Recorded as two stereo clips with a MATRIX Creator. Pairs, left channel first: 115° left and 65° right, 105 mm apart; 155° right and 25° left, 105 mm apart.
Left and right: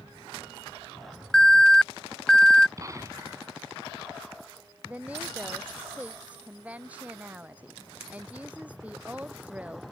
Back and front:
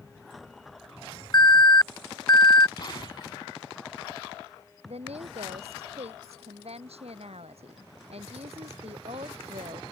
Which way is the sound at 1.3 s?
165° right.